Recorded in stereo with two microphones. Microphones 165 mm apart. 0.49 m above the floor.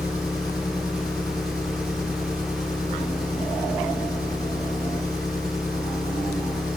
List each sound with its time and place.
0.0 s an engine running: 20° left (ahead or behind), 5 m